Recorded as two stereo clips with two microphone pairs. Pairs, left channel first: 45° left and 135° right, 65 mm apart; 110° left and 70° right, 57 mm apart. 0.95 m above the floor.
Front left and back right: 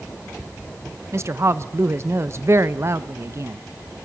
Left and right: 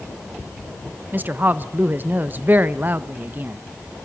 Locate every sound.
1.1 s a woman speaking: 115° right, 0.6 m